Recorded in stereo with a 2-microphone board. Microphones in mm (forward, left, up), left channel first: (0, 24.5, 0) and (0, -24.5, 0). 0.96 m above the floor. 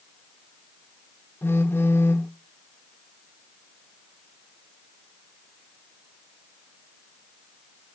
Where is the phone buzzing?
50° left (ahead or behind), 1.5 m.